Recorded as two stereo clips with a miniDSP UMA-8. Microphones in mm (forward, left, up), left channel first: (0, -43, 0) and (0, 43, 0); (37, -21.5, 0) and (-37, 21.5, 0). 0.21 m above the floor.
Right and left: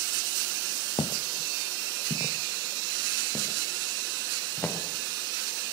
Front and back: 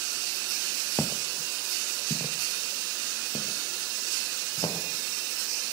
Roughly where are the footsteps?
Right.